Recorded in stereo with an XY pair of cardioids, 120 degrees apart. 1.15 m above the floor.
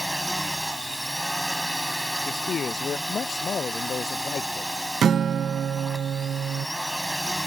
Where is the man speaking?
40° left.